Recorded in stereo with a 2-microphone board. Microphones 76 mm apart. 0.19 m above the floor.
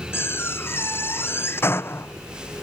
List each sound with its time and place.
0.1 s a door slam: 30° left (ahead or behind)